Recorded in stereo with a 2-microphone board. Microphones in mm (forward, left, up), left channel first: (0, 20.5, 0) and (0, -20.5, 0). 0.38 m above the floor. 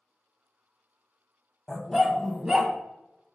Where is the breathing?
No breathing in this recording.